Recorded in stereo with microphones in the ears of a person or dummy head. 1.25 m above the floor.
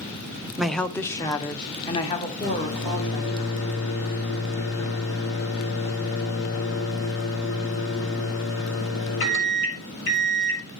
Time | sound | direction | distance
0.6 | a woman speaking | centre (ahead or behind) | 0.5 m
2.4 | a microwave | 80° left | 2 m